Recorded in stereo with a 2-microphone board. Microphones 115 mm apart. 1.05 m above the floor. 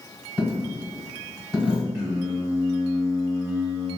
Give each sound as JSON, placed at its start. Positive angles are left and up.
{"t": 0.4, "sound": "a dropped coin", "side_deg": -10, "distance_m": 1.2}
{"t": 1.9, "sound": "singing", "side_deg": -25, "distance_m": 1.8}